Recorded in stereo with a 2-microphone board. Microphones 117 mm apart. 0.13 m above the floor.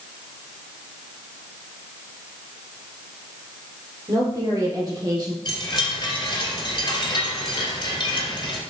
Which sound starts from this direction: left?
A chime, at 5.5 s.